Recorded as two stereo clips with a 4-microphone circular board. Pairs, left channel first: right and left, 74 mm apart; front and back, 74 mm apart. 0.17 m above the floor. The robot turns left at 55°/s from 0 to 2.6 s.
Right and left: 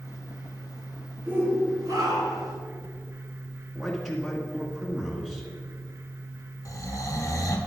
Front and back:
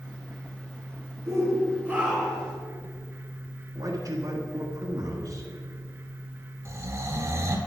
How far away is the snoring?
About 1.4 m.